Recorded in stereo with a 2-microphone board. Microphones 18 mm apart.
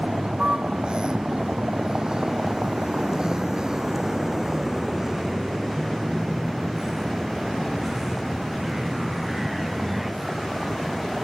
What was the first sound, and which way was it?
A vehicle, 70° right (ahead or behind).